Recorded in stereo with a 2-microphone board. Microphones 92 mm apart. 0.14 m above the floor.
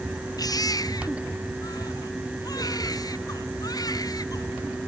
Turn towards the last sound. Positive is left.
turn(degrees=45)  # may be behind; listen again after turning